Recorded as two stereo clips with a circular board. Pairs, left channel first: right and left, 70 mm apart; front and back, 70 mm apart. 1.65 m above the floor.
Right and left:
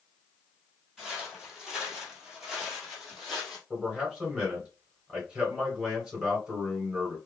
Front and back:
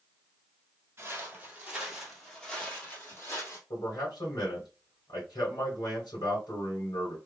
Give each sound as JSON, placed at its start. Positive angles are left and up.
{"t": 1.0, "sound": "footsteps", "azimuth_deg": 170, "distance_m": 1.9}
{"t": 3.7, "sound": "a man speaking", "azimuth_deg": 15, "distance_m": 1.8}